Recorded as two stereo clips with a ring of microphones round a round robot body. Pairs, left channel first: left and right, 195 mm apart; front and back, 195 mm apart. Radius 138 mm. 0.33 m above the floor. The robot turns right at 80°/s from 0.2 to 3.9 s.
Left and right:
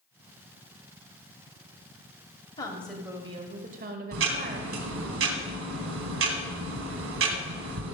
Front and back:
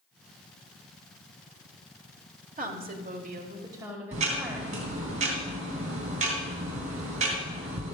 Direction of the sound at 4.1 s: 115° right.